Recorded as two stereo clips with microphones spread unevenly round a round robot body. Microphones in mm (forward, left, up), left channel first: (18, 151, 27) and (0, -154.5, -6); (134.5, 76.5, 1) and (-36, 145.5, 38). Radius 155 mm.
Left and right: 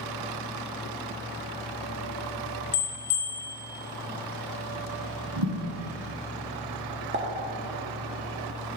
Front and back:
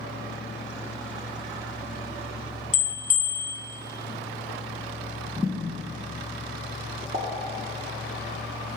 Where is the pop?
140° right, 0.6 m.